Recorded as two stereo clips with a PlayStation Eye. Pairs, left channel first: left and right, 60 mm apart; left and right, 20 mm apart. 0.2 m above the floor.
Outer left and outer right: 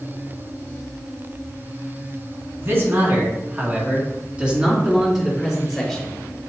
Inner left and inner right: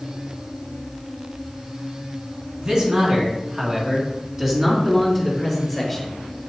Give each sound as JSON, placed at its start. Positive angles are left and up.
{"t": 2.6, "sound": "a man speaking", "side_deg": -40, "distance_m": 2.5}